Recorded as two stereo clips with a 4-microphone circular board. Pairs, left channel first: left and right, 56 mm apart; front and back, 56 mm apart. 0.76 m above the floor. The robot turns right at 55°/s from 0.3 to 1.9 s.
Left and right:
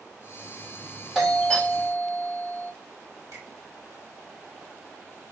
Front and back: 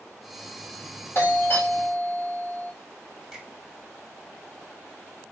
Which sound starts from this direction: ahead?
A doorbell, at 1.1 s.